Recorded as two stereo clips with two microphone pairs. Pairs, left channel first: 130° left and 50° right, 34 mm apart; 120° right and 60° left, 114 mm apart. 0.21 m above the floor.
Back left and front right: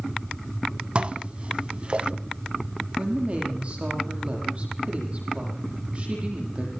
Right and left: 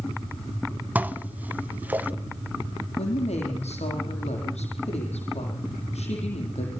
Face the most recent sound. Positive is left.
turn(degrees=-100)